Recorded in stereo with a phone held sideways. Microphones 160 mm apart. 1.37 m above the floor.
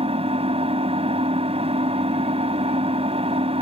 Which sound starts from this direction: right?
An engine running, at 0.0 s.